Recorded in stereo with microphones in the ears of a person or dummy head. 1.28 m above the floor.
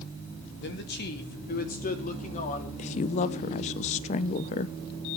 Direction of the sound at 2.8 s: 45° left (ahead or behind).